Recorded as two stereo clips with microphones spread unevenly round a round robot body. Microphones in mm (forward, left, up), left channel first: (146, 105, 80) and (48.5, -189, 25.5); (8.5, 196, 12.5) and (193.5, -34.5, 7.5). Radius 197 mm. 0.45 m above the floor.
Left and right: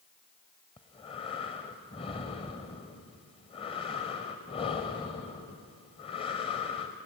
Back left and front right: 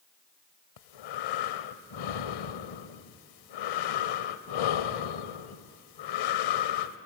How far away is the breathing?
About 0.6 m.